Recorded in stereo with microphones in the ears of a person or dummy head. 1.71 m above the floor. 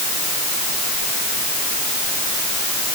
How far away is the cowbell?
I don't hear a cowbell.